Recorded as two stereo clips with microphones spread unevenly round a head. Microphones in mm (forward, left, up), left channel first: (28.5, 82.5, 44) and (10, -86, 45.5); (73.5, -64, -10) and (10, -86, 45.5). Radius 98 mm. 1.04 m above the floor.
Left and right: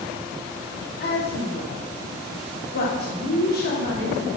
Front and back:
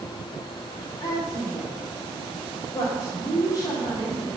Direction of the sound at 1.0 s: 55° left.